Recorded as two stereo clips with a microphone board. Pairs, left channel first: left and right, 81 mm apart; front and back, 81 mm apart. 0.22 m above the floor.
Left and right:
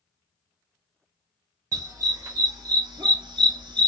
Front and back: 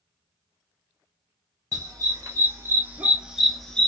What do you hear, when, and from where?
1.7 s a dog barking: 135° right, 1.3 m; by 3.9 s 75° right, 0.7 m